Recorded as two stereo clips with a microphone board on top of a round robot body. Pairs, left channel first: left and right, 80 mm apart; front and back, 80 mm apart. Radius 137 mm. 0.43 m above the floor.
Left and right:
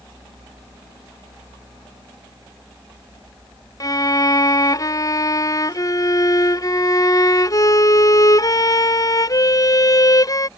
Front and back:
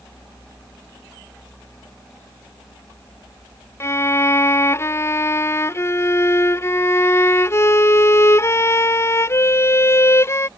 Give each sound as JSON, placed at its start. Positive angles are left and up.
{"t": 3.8, "sound": "a violin", "azimuth_deg": 55}